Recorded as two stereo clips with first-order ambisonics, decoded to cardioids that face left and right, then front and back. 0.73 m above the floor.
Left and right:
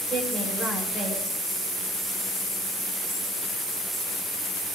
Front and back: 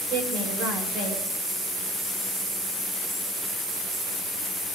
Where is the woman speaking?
165° right, 8.5 m.